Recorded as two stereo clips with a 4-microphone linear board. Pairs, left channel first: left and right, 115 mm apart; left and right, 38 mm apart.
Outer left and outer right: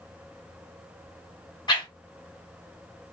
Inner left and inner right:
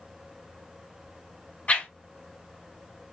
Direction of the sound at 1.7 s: 40° left (ahead or behind).